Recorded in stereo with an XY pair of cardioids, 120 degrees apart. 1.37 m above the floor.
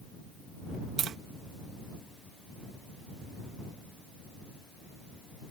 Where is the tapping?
55° right.